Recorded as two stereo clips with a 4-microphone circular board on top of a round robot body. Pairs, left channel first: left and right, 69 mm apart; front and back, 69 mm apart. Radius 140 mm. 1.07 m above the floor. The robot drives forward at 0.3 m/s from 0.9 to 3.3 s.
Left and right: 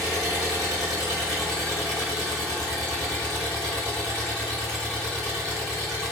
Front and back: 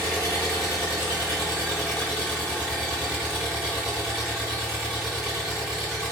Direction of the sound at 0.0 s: 5° left.